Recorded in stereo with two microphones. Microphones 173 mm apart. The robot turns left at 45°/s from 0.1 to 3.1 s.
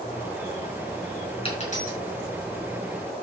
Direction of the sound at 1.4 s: 30° left (ahead or behind).